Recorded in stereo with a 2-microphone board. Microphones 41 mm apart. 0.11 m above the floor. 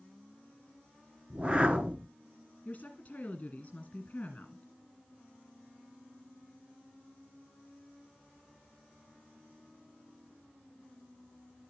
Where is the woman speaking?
35° left (ahead or behind), 1.9 m.